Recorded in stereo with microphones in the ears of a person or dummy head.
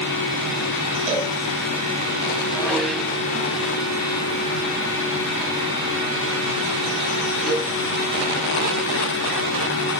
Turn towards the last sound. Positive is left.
turn(degrees=0)  # may be behind; listen again after turning